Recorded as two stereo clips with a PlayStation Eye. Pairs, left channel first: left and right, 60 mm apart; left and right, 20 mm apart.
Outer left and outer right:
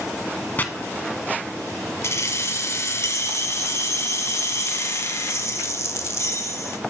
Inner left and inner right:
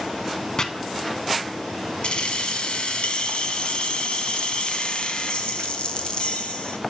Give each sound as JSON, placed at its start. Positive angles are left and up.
{"t": 0.6, "sound": "chopping", "side_deg": 30, "distance_m": 0.8}
{"t": 2.0, "sound": "keys jangling", "side_deg": 50, "distance_m": 1.0}